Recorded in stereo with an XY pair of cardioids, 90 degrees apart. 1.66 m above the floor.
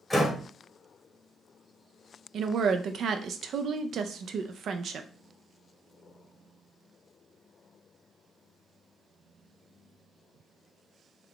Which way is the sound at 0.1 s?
10° left.